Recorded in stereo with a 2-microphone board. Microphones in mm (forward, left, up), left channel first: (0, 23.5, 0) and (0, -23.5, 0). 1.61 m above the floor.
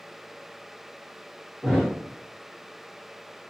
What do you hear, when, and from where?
1.6 s a thud: 15° right (ahead or behind), 1.0 m